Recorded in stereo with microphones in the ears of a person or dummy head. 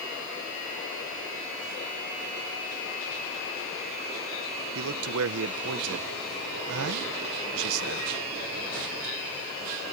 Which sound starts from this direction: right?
A man speaking, at 4.8 s.